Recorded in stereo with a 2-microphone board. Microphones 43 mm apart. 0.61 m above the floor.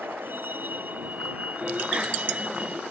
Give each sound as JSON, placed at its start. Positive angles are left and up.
{"t": 0.0, "sound": "a vehicle", "side_deg": -55}
{"t": 1.6, "sound": "a bicycle bell", "side_deg": -25}